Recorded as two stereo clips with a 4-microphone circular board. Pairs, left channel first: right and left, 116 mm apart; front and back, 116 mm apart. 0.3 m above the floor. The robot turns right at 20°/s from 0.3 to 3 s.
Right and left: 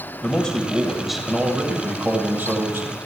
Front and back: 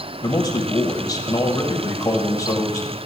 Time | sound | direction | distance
0.2 | a man speaking | 15° right | 1.0 m